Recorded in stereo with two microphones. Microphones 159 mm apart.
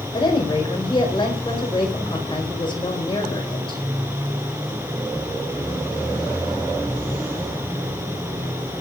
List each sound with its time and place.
0.1 s a woman speaking: 30° left (ahead or behind), 5.5 m